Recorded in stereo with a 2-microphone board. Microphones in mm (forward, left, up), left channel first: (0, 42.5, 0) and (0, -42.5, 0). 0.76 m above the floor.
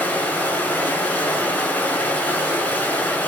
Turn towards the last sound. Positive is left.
turn(degrees=20)  # may be behind; listen again after turning